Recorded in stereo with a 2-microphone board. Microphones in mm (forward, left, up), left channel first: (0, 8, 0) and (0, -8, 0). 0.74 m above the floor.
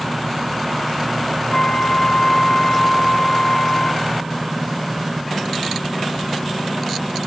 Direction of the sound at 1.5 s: 55° left (ahead or behind).